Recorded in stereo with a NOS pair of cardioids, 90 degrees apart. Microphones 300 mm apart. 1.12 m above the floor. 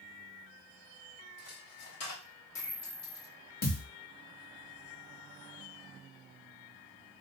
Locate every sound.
1.4 s a dropped coin: 60° left, 1.2 m
3.6 s a thud: 30° left, 1.2 m